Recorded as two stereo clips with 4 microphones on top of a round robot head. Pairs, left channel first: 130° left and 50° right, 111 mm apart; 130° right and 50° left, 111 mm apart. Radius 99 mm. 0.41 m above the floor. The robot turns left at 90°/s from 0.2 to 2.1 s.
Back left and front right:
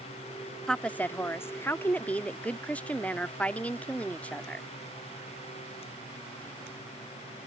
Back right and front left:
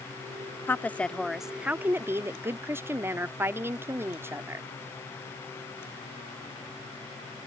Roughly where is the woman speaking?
Behind right.